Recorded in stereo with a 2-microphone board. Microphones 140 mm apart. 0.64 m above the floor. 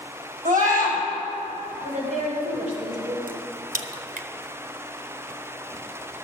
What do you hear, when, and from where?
0.5 s a scream: 75° right (ahead or behind), 3.5 m
1.8 s a woman speaking: 60° right (ahead or behind), 2.5 m
3.3 s a crack: 80° right, 0.5 m